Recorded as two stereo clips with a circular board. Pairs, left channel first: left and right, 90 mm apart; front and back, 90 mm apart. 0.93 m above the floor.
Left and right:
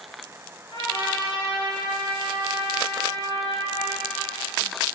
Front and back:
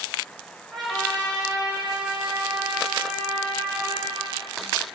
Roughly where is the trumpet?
Left.